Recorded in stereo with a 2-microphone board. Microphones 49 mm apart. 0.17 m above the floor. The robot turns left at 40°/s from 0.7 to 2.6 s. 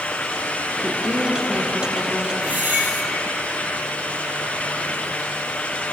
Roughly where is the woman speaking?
Ahead right.